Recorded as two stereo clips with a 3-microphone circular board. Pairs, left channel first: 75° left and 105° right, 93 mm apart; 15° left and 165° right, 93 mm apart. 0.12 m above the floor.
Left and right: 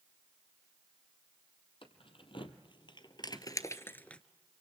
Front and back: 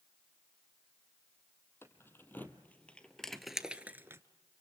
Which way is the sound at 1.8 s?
80° left.